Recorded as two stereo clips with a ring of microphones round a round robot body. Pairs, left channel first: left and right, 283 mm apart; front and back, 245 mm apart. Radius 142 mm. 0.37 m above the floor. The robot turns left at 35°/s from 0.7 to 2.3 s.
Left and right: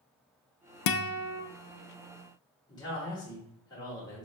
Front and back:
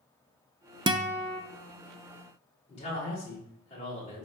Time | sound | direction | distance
0.9 | a guitar | 110° left | 0.6 m
2.7 | a man speaking | 30° left | 1.2 m